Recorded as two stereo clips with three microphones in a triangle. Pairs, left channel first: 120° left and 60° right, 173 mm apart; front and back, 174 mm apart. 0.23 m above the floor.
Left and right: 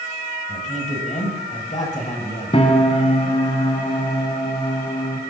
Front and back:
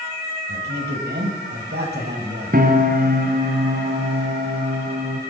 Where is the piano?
170° left, 1.8 m.